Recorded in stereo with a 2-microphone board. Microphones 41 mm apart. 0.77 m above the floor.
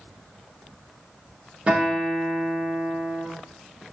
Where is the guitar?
20° right (ahead or behind), 1.1 m.